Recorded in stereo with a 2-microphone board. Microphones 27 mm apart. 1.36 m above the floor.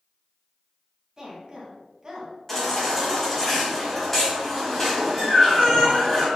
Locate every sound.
1.2 s a woman speaking: 25° right (ahead or behind), 2.5 m
2.5 s a baby crying: 10° left (ahead or behind), 3 m